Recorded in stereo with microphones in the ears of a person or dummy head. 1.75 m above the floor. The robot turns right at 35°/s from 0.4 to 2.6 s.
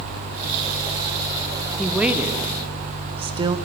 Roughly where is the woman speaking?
Centre.